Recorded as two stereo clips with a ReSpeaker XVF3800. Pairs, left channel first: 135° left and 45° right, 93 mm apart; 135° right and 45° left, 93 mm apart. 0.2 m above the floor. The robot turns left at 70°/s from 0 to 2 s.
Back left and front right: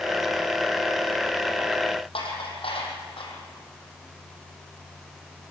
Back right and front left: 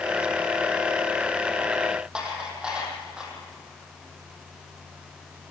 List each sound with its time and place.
2.1 s dishes clattering: 125° left, 5 m